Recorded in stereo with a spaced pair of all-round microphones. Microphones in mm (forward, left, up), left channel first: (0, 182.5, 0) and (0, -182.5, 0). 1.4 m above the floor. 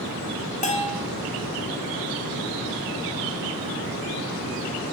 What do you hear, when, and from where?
0.6 s a bell: 20° left (ahead or behind), 0.6 m